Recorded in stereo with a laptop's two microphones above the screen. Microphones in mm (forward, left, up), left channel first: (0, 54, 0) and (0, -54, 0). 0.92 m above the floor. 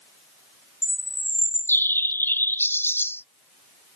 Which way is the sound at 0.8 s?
20° left (ahead or behind).